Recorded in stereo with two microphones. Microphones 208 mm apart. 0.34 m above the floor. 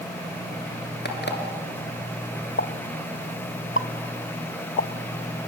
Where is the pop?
70° left (ahead or behind), 0.6 m.